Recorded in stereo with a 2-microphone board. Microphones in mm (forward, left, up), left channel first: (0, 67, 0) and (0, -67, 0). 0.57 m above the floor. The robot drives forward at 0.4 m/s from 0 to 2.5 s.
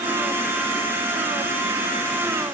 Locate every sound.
Only background noise.